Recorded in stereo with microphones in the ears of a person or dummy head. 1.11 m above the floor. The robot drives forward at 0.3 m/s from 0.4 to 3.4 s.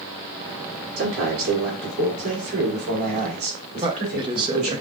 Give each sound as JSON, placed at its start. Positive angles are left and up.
{"t": 1.0, "sound": "a man speaking", "side_deg": -75, "distance_m": 2.5}
{"t": 3.8, "sound": "a man speaking", "side_deg": -25, "distance_m": 0.7}